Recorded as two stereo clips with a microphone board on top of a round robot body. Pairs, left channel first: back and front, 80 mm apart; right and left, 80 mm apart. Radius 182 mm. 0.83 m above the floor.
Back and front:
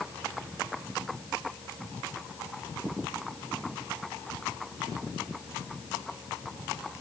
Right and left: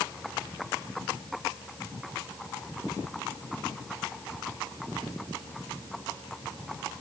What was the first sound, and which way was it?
Only background noise.